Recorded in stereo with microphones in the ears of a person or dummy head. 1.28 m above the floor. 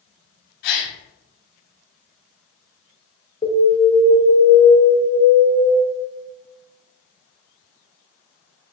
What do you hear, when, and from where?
0.6 s a gasp: 55° left (ahead or behind), 1.7 m
3.4 s an alarm: 35° left (ahead or behind), 1.8 m